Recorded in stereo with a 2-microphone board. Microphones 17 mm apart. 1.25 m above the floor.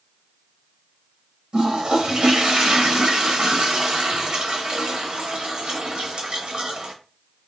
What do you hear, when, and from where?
1.5 s a toilet flushing: 70° right (ahead or behind), 0.8 m